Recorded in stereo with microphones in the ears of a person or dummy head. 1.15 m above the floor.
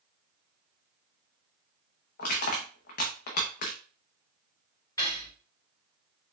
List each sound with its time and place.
2.2 s crushing: 45° left (ahead or behind), 0.7 m
5.0 s cutlery clinking: 20° left (ahead or behind), 2.0 m